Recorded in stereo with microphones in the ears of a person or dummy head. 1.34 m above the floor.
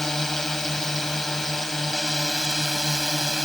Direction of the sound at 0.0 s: Centre (ahead or behind).